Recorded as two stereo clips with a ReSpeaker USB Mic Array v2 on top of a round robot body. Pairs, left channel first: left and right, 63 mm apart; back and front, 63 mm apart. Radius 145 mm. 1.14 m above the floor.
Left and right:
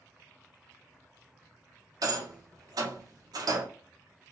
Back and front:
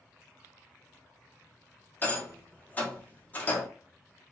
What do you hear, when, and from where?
2.0 s a rattle: 115° right, 0.7 m